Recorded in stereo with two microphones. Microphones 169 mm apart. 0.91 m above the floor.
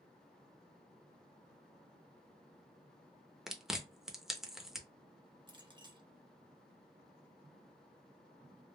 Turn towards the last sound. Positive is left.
turn(degrees=-30)  # may be behind; listen again after turning